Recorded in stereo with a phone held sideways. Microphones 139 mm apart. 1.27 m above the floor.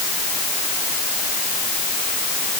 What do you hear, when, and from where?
Only background noise.